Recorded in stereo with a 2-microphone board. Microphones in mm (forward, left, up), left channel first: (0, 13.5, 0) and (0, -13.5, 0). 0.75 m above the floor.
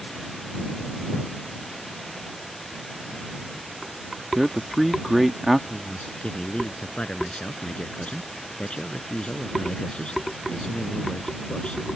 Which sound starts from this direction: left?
A man speaking, at 5.7 s.